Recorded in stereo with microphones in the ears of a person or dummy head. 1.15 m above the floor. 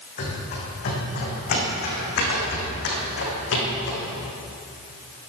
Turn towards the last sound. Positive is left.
turn(degrees=75)  # may be behind; listen again after turning